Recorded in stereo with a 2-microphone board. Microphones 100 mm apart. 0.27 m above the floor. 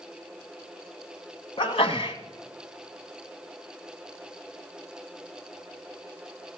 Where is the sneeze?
60° left (ahead or behind), 1.7 m.